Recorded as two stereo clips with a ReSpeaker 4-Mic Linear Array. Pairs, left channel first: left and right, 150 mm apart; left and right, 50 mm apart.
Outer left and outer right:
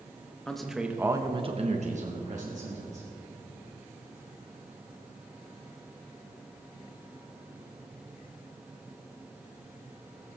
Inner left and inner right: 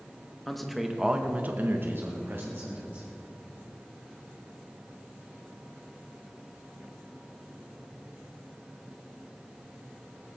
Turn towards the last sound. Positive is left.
turn(degrees=-50)  # may be behind; listen again after turning